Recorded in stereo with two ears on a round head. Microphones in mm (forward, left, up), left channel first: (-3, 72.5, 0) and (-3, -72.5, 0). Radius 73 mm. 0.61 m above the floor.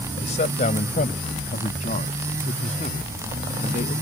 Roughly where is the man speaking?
Left.